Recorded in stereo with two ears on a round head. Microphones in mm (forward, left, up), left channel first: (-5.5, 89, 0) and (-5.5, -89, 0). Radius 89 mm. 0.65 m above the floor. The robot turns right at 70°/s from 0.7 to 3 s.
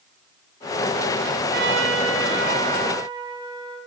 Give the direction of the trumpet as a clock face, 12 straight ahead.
4 o'clock.